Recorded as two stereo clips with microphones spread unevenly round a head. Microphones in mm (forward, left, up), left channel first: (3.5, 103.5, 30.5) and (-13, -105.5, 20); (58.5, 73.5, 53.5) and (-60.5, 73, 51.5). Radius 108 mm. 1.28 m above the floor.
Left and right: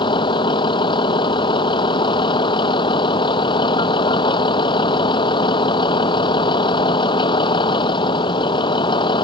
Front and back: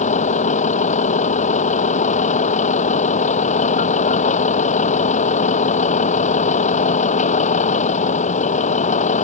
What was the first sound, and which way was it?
A vehicle, 15° left.